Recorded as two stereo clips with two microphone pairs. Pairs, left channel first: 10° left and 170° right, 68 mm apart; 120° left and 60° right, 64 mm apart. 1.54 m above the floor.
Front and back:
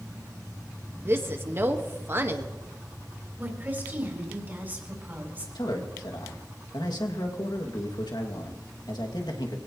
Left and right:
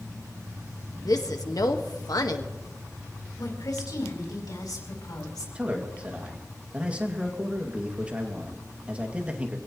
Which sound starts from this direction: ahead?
A man speaking, at 5.5 s.